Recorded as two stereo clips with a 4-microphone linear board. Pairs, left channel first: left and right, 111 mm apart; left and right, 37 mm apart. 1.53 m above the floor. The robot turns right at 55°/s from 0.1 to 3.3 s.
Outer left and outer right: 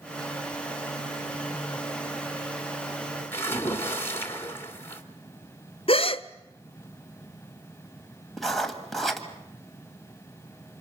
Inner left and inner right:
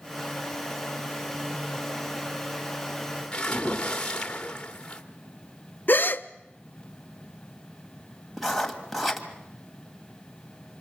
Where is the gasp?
55° left (ahead or behind), 0.5 m.